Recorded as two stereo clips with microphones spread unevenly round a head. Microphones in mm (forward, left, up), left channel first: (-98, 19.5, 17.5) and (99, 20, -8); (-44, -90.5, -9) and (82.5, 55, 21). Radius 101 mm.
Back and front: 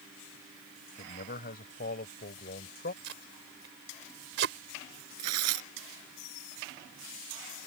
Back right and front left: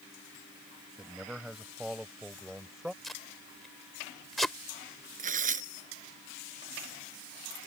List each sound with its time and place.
1.0 s a man speaking: 135° left
3.0 s tape being pulled: 40° right
5.2 s tearing paper: straight ahead